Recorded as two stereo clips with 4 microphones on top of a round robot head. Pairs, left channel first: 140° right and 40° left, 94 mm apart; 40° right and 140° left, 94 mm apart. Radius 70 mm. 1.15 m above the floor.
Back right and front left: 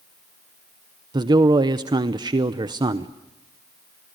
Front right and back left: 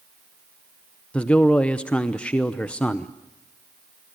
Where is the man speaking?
35° left, 0.9 m.